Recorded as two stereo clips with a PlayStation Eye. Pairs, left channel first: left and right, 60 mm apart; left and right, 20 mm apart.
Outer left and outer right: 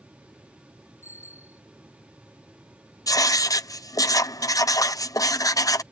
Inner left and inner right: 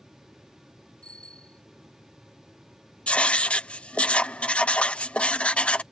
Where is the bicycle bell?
50° left (ahead or behind).